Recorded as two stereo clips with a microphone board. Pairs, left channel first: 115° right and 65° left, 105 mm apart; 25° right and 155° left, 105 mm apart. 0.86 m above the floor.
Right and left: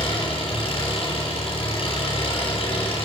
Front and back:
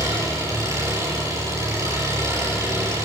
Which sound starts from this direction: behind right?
An engine running, at 0.0 s.